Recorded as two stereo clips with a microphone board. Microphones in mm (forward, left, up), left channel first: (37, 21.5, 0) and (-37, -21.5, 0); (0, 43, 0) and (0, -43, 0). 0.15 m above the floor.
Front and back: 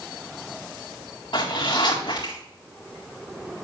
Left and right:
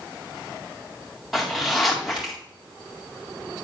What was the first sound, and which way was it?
A zipper, straight ahead.